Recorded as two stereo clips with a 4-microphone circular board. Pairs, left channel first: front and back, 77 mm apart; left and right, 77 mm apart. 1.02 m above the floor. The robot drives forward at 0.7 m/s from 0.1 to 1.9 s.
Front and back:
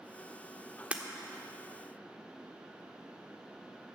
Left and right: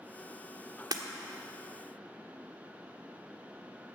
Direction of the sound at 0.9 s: 110° right.